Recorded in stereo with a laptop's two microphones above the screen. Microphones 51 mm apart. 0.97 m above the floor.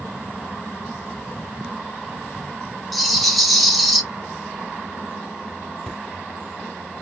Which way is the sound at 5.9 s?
5° left (ahead or behind).